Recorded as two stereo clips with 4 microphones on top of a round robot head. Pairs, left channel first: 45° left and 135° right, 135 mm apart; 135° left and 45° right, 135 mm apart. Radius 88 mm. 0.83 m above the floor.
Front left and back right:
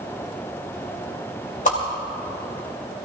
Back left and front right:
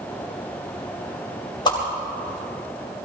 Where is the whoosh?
75° left, 3 m.